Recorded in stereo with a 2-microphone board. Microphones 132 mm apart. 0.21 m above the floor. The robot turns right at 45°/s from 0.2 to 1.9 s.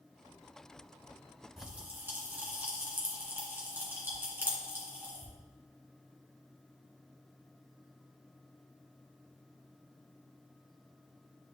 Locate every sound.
1.6 s a pop: centre (ahead or behind), 2 m; by 5.3 s 15° right (ahead or behind), 2 m